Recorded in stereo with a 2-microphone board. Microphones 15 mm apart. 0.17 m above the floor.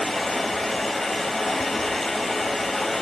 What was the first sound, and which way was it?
Running water, 40° left (ahead or behind).